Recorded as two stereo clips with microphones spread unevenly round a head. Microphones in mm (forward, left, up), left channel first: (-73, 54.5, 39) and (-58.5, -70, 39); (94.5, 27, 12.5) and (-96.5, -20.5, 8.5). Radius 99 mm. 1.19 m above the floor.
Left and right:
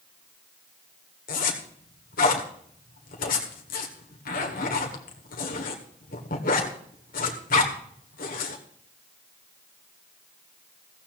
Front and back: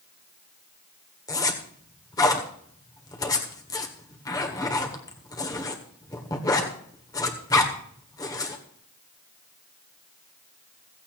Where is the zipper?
85° left, 1.7 m.